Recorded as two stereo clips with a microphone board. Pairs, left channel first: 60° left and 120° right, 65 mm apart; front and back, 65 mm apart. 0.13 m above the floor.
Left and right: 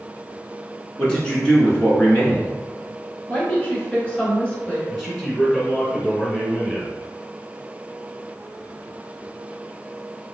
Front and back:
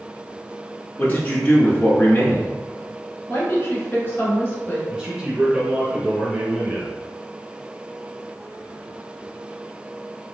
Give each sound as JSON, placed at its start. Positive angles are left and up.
{"t": 1.0, "sound": "a man speaking", "azimuth_deg": 0, "distance_m": 1.2}
{"t": 3.3, "sound": "a woman speaking", "azimuth_deg": 5, "distance_m": 1.5}
{"t": 4.9, "sound": "a man speaking", "azimuth_deg": 150, "distance_m": 1.6}